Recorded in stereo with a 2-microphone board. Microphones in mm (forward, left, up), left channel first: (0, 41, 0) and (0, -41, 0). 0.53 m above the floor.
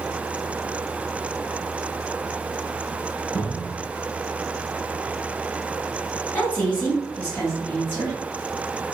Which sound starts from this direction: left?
A woman speaking, at 6.3 s.